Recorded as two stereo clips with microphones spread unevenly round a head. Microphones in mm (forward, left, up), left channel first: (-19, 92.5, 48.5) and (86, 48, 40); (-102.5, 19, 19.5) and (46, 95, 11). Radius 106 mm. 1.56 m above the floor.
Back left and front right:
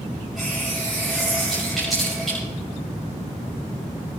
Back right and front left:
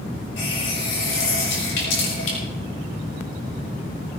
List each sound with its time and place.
0.4 s a running tap: 115° right, 5.5 m